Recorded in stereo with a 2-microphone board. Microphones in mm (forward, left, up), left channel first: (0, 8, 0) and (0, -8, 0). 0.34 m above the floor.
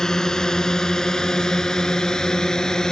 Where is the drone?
35° left (ahead or behind); by 2.9 s 40° left (ahead or behind).